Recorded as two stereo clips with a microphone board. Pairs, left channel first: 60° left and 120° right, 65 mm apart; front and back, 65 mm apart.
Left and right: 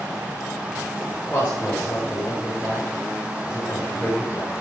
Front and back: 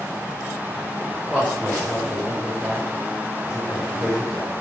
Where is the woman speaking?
120° left, 5 m; by 4.5 s 115° left, 9 m.